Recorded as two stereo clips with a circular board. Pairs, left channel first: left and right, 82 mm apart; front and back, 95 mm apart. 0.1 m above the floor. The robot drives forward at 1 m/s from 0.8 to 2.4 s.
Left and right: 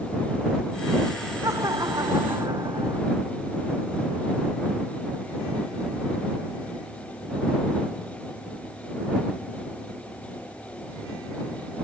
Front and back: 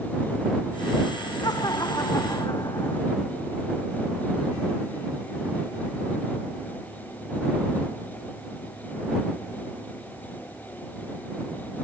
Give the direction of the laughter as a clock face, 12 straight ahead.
2 o'clock.